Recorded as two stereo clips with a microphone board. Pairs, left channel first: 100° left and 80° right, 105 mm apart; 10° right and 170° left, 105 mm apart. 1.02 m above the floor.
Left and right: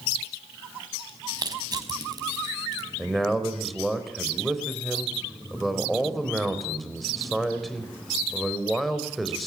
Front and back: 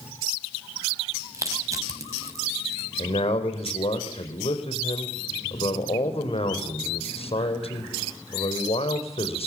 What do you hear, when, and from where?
1.3 s crushing: 130° right, 4.5 m
3.0 s a man speaking: 10° left, 4.5 m